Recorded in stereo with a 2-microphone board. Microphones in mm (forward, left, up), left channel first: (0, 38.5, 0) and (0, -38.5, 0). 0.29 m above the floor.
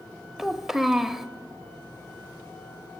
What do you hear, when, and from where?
0.4 s a child speaking: 5° right (ahead or behind), 0.5 m